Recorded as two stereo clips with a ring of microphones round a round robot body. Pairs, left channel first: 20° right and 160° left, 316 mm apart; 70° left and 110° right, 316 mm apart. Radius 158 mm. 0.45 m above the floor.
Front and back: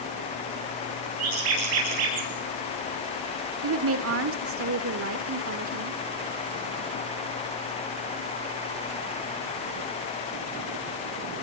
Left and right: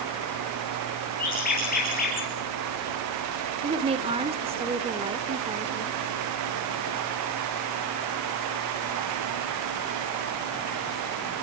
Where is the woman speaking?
Straight behind, 1.6 m.